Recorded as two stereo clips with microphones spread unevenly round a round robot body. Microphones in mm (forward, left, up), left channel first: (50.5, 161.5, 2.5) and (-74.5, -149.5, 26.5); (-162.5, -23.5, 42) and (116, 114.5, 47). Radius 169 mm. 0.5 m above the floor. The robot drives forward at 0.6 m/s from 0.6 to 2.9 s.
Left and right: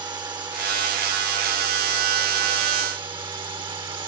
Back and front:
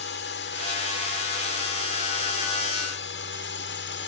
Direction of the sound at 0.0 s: 170° left.